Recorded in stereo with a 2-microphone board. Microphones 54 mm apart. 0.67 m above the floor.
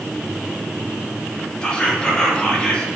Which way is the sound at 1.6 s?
20° left (ahead or behind).